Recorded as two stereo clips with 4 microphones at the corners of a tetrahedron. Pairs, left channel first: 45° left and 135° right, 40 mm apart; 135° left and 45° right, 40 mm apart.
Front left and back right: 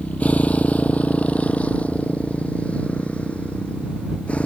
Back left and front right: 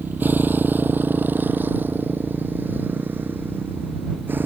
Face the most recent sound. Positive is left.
turn(degrees=-10)